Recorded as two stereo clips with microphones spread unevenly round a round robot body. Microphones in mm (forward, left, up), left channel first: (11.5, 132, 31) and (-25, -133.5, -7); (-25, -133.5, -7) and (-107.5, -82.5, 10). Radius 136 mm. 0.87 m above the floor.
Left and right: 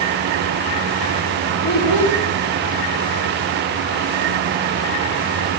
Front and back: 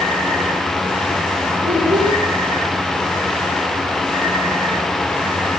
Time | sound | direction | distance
1.6 | a child speaking | 65° left | 3 m